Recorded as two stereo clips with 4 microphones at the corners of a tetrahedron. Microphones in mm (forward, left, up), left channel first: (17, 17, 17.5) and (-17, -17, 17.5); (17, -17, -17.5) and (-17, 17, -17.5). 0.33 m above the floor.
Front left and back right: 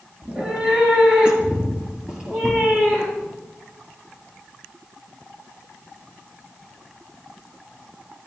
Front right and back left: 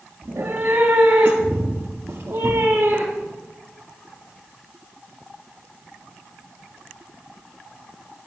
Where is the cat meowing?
155° left, 3 m; by 3.4 s 150° left, 5 m.